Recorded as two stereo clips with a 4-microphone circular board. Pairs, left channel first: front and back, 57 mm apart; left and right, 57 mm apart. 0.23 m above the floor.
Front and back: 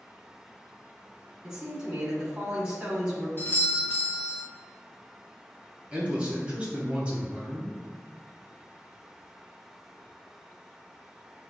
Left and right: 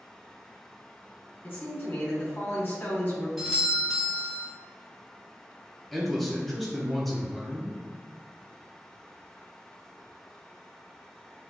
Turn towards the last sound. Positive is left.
turn(degrees=175)